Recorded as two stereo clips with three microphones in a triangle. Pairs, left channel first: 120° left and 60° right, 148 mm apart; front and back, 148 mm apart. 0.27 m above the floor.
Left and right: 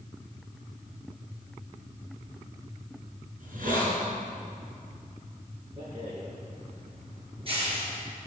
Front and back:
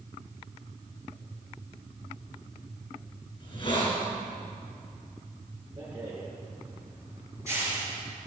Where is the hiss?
55° right, 4.5 m.